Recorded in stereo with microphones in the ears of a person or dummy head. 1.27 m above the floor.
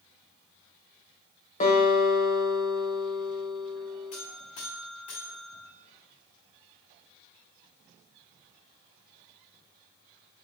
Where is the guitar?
40° left (ahead or behind), 1.5 m.